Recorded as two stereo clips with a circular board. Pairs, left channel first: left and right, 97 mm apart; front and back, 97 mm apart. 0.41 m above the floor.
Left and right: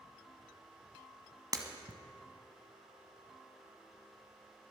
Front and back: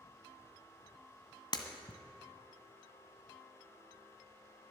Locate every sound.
1.5 s breaking glass: 40° right, 1.4 m